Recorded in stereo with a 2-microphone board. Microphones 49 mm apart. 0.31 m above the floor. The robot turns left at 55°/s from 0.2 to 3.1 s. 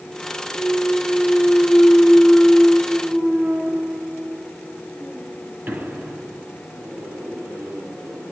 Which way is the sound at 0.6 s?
80° left.